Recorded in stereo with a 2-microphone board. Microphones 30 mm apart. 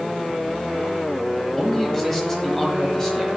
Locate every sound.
1.6 s a man speaking: 10° left (ahead or behind), 1.2 m; by 3.3 s 15° left (ahead or behind), 1.3 m